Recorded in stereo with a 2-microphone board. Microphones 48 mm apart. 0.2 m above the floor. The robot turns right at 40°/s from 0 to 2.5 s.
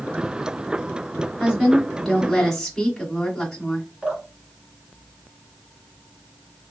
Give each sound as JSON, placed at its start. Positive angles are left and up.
{"t": 1.4, "sound": "a woman speaking", "side_deg": -10, "distance_m": 1.4}
{"t": 4.0, "sound": "dripping", "side_deg": -20, "distance_m": 2.5}